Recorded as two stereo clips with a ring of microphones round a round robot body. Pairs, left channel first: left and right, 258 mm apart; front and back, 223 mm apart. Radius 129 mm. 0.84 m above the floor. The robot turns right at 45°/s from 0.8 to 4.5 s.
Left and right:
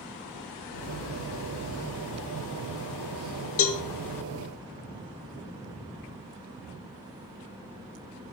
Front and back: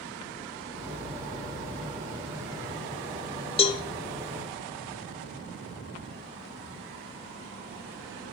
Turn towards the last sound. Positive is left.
turn(degrees=100)